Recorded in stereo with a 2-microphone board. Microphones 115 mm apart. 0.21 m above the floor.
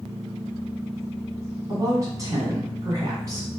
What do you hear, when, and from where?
1.7 s a woman speaking: 30° right (ahead or behind), 1.8 m